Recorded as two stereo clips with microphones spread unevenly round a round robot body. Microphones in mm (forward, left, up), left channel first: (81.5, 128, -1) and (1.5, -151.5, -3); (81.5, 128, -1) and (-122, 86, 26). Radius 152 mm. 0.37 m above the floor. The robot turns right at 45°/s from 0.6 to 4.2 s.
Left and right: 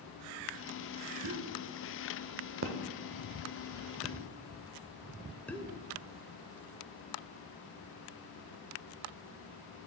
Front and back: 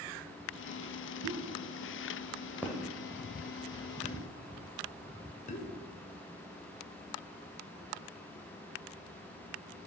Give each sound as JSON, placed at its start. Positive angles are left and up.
{"t": 1.2, "sound": "a pop", "azimuth_deg": -145, "distance_m": 0.7}